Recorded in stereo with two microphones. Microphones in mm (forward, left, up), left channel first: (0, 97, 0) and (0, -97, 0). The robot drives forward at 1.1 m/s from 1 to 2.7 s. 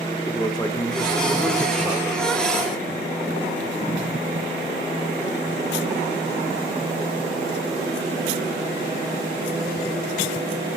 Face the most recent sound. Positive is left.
turn(degrees=10)  # may be behind; listen again after turning